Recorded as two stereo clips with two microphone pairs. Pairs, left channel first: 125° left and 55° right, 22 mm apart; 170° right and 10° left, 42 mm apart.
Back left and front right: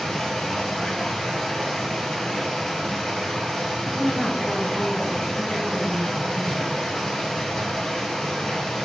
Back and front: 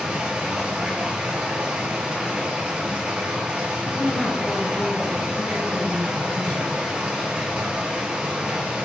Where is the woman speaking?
140° left, 1.3 m.